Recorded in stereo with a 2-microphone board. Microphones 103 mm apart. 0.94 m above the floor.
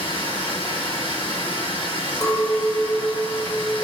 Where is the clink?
40° left (ahead or behind), 0.6 m.